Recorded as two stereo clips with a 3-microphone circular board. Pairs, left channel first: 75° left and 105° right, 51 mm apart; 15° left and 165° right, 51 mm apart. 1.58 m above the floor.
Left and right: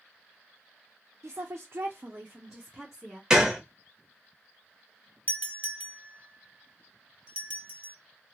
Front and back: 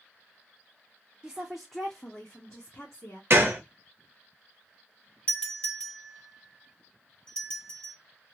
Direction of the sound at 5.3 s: 50° right.